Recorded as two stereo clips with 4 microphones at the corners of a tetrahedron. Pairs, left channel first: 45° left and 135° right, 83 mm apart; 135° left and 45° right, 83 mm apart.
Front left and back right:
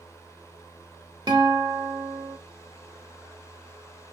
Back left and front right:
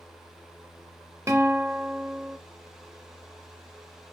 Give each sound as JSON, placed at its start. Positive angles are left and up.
{"t": 1.3, "sound": "a guitar", "azimuth_deg": -100, "distance_m": 0.8}